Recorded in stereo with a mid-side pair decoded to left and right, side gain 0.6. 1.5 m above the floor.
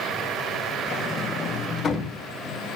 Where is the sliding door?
35° left, 1.5 m.